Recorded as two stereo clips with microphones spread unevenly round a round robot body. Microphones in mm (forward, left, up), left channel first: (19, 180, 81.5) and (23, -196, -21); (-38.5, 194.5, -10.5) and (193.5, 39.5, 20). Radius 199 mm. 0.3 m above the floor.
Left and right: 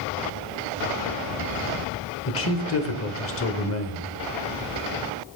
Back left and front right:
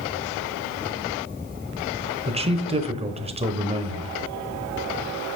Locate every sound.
2.3 s a man speaking: 30° left, 1.1 m